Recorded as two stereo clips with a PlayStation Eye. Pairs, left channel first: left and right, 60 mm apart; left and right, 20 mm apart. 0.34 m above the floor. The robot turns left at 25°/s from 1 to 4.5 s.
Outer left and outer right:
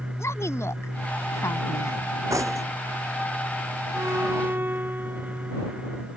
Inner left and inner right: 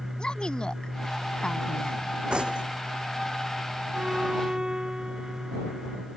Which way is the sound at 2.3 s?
55° right (ahead or behind).